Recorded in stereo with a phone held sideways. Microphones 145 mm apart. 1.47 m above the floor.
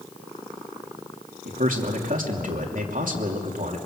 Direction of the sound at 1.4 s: 70° right (ahead or behind).